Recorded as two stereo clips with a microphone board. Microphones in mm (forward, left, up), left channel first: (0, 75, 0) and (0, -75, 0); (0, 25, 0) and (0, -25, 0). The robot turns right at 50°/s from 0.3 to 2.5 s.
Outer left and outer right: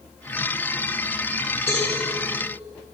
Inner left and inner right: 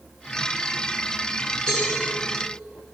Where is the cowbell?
20° left (ahead or behind), 3 m; by 1.9 s 10° left (ahead or behind), 3 m.